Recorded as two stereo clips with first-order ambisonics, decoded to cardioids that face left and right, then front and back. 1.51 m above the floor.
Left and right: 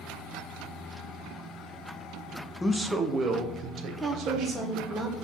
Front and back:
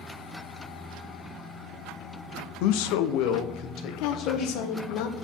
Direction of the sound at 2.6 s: 10° left.